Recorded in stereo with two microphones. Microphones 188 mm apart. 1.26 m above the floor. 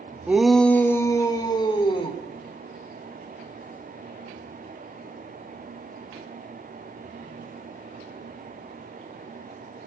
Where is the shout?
10° right (ahead or behind), 1.4 m; by 2.2 s 30° left (ahead or behind), 3.5 m.